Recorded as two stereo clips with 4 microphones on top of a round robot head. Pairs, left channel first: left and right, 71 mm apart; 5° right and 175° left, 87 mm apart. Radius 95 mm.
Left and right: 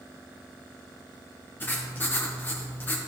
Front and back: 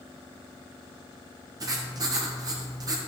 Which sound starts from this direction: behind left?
Writing, at 1.6 s.